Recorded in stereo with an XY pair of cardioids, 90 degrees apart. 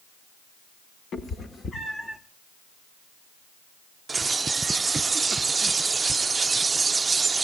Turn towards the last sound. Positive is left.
turn(degrees=-30)